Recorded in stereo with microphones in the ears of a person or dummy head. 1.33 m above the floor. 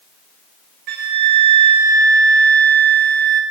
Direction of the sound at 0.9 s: 50° right (ahead or behind).